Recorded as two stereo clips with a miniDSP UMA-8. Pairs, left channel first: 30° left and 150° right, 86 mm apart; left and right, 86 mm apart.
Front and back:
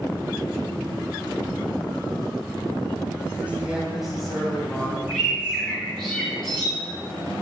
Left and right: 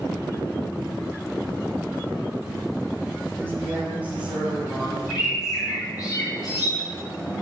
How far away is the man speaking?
About 1.5 m.